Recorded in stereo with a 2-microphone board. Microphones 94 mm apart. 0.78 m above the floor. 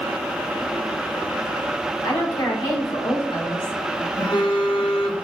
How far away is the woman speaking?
About 1.7 m.